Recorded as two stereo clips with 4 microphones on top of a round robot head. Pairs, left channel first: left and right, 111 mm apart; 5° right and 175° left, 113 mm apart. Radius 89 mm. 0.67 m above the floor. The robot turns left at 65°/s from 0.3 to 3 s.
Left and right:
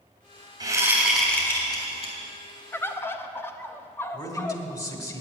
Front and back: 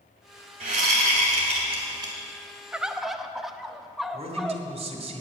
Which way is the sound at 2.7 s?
110° left.